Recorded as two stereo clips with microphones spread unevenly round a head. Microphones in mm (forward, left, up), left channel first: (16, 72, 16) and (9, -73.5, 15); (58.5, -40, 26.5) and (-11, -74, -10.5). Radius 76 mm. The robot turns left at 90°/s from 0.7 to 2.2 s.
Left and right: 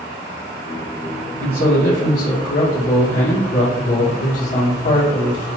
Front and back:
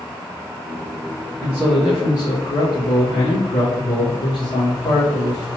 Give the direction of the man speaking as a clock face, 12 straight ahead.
8 o'clock.